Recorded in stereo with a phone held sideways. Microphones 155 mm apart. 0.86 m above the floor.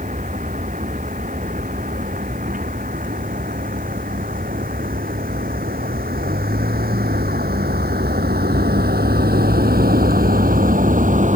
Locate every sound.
0.0 s a vehicle: 55° right (ahead or behind)